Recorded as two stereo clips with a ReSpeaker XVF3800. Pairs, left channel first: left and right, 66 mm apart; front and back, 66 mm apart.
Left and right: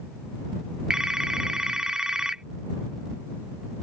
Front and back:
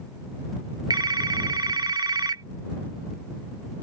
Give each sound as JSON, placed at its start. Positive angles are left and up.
{"t": 0.9, "sound": "a phone ringing", "azimuth_deg": -170}